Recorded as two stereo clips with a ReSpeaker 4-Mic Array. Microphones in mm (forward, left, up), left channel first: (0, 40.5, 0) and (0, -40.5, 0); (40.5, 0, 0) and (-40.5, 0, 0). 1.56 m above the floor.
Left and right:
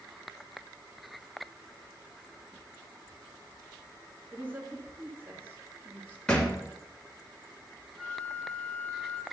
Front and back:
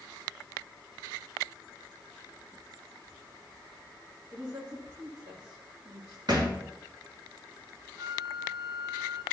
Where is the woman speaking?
155° right, 3 m.